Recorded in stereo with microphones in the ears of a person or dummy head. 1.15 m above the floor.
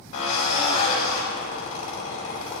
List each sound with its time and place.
0.1 s a drill: 75° left (ahead or behind), 3.5 m